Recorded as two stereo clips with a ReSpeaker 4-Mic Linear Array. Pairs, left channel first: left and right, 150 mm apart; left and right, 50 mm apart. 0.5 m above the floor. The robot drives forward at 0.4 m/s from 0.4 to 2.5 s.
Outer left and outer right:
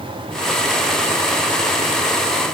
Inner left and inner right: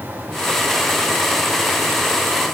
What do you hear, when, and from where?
Only background noise.